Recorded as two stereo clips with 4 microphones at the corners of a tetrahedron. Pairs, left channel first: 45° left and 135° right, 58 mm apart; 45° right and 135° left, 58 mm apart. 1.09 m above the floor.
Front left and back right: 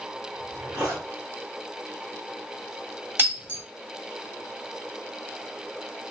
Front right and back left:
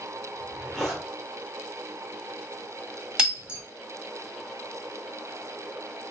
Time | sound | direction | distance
0.3 | a zipper | 130° right | 1.3 m
3.2 | breaking glass | 160° right | 1.1 m